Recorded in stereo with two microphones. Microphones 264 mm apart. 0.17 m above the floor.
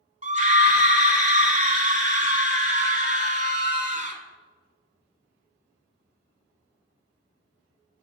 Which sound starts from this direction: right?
A scream, at 0.2 s.